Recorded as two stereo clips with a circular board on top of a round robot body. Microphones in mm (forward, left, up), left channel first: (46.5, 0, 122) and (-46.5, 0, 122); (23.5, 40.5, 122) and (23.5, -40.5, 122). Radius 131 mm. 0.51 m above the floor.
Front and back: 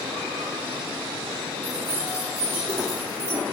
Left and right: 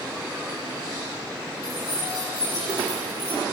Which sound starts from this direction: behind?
Keys jangling, at 1.6 s.